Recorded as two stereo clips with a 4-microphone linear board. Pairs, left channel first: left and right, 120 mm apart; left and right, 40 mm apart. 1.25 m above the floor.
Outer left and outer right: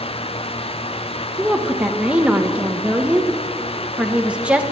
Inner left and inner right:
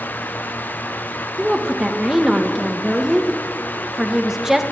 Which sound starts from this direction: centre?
A woman speaking, at 1.4 s.